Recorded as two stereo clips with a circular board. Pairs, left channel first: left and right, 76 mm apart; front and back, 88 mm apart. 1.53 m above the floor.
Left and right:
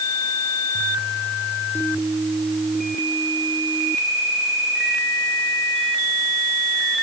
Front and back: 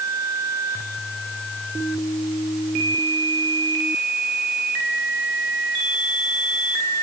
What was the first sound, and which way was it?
Only background noise.